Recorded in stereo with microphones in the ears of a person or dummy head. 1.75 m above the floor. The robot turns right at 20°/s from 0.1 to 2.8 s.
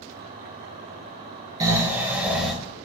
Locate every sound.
1.6 s snoring: 20° right (ahead or behind), 1.8 m; by 2.5 s centre (ahead or behind), 1.8 m